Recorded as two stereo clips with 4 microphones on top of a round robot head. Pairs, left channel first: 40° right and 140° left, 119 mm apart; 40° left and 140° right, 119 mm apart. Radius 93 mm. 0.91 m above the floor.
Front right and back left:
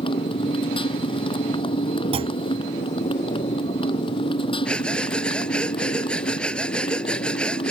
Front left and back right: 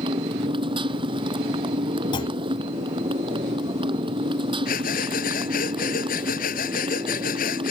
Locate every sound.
0.0 s a motorcycle: 90° right
2.1 s a clunk: 95° left
4.7 s breathing: 45° left